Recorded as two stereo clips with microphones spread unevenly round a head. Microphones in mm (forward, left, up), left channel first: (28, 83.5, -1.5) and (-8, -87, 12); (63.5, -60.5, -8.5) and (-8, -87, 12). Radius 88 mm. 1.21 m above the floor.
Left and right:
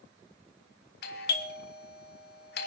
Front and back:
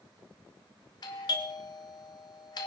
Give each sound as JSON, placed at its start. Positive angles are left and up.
{"t": 1.0, "sound": "a doorbell", "azimuth_deg": 55, "distance_m": 1.7}